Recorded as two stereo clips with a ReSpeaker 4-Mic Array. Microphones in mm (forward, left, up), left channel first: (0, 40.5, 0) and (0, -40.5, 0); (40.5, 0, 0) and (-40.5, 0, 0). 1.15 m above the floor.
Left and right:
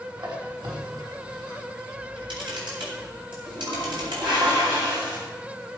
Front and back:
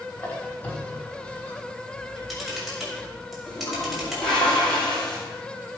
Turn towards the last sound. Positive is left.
turn(degrees=-80)